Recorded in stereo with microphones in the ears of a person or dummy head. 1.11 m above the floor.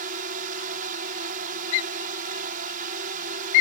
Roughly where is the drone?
Right.